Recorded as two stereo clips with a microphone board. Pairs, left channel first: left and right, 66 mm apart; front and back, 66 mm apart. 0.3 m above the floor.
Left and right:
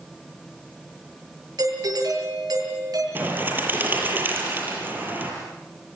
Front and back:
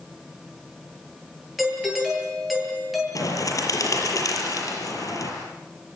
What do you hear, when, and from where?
1.6 s a doorbell: 90° right, 8.5 m
3.1 s a bird: 30° right, 6.5 m